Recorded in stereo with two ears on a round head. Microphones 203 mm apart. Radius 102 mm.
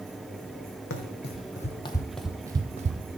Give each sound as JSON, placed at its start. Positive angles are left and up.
{"t": 0.9, "sound": "running footsteps", "side_deg": 55, "distance_m": 1.0}